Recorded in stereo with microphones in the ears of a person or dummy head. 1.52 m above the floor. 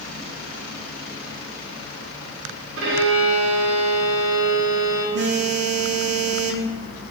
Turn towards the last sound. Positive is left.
turn(degrees=-55)  # may be behind; listen again after turning